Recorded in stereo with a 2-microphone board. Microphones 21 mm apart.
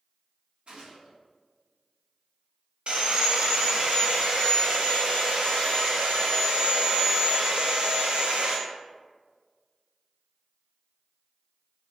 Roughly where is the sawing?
Right.